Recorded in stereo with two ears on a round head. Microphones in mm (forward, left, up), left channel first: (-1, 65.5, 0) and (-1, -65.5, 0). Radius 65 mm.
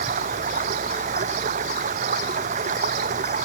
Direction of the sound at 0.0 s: 50° right (ahead or behind).